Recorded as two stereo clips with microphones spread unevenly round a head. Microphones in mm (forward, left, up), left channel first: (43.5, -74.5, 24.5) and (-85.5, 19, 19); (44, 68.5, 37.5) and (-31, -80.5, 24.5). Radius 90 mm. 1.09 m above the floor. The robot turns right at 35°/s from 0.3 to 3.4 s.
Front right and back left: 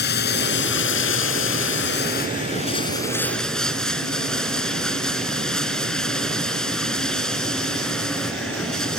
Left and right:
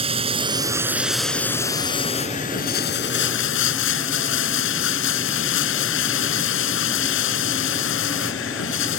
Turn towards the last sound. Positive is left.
turn(degrees=50)